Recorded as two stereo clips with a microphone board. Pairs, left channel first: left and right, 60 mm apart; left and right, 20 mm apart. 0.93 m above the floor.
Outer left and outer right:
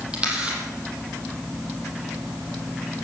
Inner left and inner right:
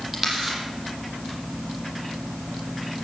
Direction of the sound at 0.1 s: 15° right (ahead or behind).